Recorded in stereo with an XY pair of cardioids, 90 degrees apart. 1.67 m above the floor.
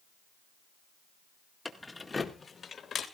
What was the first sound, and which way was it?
Keys jangling, 5° left.